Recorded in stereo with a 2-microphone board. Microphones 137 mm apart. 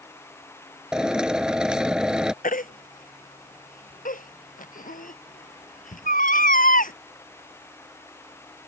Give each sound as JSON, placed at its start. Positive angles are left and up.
{"t": 0.9, "sound": "a drill", "side_deg": -5}
{"t": 2.4, "sound": "a baby crying", "side_deg": 75}